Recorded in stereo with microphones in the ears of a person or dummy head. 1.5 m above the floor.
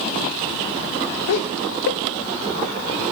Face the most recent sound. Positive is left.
turn(degrees=70)  # may be behind; listen again after turning